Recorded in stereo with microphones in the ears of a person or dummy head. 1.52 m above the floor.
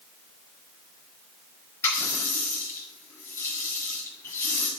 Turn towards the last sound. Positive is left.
turn(degrees=20)  # may be behind; listen again after turning